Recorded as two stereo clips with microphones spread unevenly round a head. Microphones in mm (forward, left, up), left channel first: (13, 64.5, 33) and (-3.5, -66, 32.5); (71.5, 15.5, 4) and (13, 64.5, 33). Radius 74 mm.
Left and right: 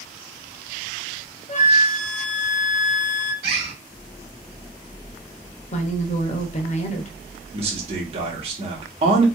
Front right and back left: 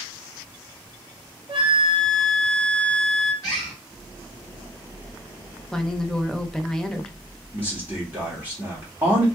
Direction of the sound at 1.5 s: 120° left.